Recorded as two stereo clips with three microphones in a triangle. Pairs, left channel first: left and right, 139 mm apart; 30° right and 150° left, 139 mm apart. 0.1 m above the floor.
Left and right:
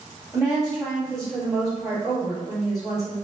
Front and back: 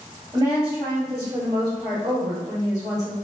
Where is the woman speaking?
Straight behind, 1.9 m.